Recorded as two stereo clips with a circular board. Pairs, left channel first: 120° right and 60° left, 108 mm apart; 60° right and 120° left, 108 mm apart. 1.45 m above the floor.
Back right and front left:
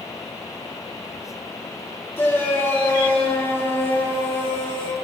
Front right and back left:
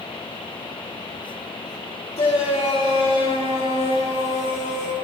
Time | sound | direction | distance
2.2 | a shout | 55° right | 3.5 m